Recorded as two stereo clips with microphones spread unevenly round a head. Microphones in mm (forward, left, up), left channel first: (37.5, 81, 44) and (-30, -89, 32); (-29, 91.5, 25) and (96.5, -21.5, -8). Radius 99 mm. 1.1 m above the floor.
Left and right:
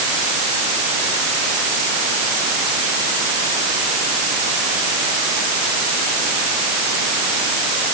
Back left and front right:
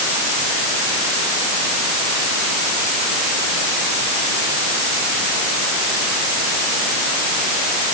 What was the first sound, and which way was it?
Only background noise.